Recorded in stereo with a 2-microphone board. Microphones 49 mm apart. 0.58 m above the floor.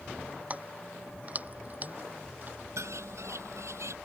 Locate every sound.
0.5 s keys jangling: 30° right (ahead or behind); by 2.6 s 35° right (ahead or behind)
2.8 s a bird: 75° right (ahead or behind)